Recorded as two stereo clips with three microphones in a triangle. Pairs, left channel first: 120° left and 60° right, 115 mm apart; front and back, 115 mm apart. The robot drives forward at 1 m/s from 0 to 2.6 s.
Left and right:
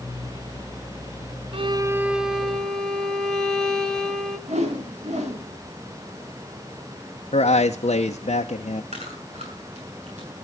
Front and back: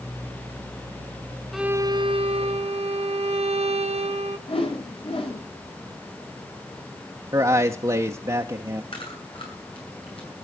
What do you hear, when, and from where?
1.5 s a violin: 90° right, 0.5 m; by 4.4 s 155° right, 1.2 m
4.5 s a whoosh: 40° right, 3 m
7.3 s a man speaking: 125° left, 0.9 m
8.9 s chewing: 40° right, 7.5 m